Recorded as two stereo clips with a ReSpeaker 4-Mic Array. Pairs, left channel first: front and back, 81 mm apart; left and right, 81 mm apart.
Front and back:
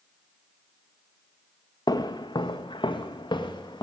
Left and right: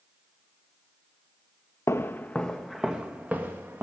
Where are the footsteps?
35° left, 0.9 m; by 3.9 s 30° right, 1.7 m.